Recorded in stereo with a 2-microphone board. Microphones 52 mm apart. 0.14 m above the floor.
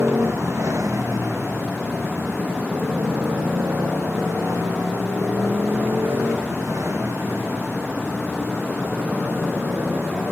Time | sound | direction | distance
0.0 | a motorcycle | 75° right (ahead or behind) | ?